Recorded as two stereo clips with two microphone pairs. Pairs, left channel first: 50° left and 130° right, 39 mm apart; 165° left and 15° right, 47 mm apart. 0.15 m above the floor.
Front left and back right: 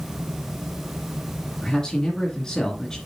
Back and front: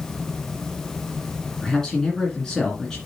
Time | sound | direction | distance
1.6 | a man speaking | 100° left | 1.9 m